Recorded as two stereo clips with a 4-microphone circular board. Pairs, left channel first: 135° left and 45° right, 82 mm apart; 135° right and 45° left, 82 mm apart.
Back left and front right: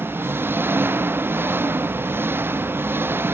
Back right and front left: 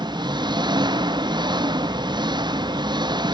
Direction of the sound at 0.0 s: 15° left.